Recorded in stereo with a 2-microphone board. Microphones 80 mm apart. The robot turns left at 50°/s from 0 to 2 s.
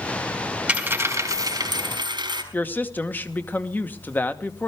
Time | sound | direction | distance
0.7 | a dropped coin | 15° right | 3 m
2.5 | a woman speaking | 25° left (ahead or behind) | 1.1 m